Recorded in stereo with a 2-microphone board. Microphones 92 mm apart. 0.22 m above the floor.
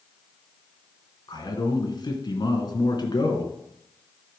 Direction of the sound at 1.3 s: 50° left (ahead or behind).